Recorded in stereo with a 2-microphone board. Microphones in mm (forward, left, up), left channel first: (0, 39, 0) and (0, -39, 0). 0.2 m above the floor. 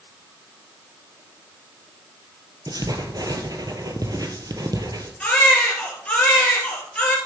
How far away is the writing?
About 1.4 m.